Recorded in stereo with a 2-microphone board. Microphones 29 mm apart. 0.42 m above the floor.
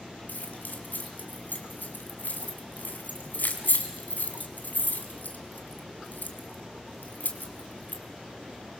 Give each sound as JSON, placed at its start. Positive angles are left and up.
{"t": 0.3, "sound": "keys jangling", "side_deg": 75, "distance_m": 2.5}